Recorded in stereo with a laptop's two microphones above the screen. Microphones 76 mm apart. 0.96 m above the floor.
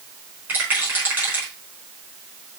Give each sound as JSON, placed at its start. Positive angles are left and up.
{"t": 0.5, "sound": "a rattle", "side_deg": -25, "distance_m": 4.0}